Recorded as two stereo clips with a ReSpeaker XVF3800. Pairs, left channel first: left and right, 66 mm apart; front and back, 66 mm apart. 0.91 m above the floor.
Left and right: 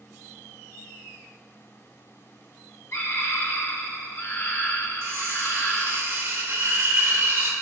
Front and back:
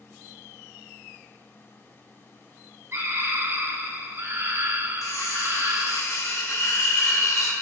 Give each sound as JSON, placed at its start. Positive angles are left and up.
{"t": 2.9, "sound": "a scream", "azimuth_deg": 135, "distance_m": 1.9}
{"t": 5.0, "sound": "cutlery clinking", "azimuth_deg": -40, "distance_m": 1.9}